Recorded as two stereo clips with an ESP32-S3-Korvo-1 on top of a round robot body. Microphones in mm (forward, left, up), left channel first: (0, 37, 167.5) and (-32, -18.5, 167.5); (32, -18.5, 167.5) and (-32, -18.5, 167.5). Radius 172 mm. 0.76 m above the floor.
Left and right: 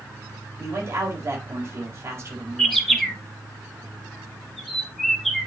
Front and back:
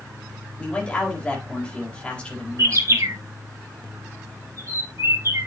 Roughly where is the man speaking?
Right.